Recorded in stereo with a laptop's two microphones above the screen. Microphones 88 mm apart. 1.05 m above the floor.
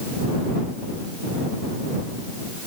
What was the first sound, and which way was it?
Only background noise.